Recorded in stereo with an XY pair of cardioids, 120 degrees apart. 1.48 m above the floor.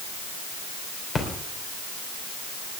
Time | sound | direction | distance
1.1 | a splash | 40° left | 3 m